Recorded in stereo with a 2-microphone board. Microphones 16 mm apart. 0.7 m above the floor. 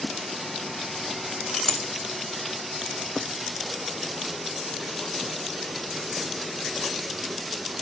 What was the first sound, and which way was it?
A clink, 30° left (ahead or behind).